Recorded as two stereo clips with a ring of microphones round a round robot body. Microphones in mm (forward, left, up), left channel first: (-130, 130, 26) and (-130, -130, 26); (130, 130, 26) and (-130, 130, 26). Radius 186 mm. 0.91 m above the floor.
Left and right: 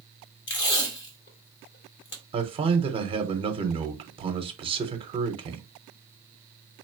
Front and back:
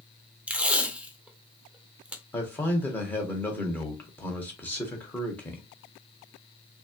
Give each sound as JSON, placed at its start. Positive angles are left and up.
{"t": 0.5, "sound": "tape being pulled", "azimuth_deg": 95, "distance_m": 1.0}
{"t": 2.3, "sound": "a man speaking", "azimuth_deg": -70, "distance_m": 0.8}